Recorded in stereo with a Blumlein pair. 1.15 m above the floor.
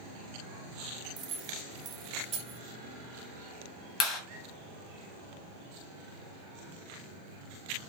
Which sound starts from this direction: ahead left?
A clap, at 4.0 s.